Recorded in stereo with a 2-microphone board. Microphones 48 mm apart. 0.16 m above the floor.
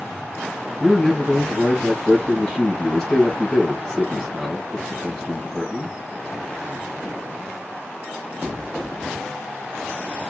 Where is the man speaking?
10° left (ahead or behind), 3 m.